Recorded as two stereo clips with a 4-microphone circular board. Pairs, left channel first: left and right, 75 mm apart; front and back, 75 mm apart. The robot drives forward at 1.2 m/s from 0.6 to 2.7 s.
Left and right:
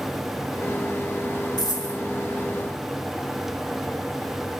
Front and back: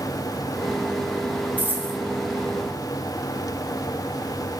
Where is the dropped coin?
110° left, 2.5 m; by 2.0 s 120° left, 2.5 m.